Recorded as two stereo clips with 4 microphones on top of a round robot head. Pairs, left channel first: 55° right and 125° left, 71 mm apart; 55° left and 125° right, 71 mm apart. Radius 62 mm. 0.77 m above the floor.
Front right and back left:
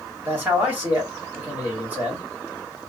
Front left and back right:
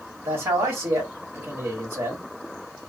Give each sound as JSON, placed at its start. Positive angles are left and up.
{"t": 0.2, "sound": "a man speaking", "azimuth_deg": -175, "distance_m": 1.8}